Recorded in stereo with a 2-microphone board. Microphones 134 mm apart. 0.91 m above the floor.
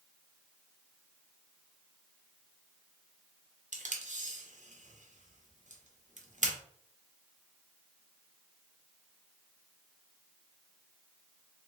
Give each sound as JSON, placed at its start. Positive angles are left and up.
{"t": 3.7, "sound": "tape being pulled", "side_deg": -70, "distance_m": 1.0}